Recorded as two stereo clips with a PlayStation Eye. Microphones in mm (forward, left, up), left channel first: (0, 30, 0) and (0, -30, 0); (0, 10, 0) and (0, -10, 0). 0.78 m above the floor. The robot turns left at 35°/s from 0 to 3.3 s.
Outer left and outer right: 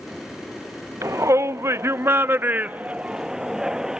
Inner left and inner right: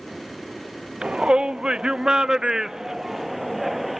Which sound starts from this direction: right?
A shout, at 1.0 s.